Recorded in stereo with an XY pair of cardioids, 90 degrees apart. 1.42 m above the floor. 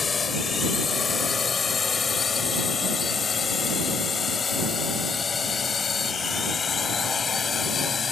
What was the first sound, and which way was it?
A drone, 40° left.